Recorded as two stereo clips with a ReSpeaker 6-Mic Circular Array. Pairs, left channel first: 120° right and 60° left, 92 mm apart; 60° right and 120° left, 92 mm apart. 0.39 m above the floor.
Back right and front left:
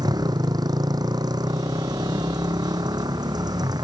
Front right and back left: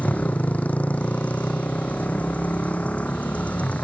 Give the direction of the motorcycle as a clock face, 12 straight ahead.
12 o'clock.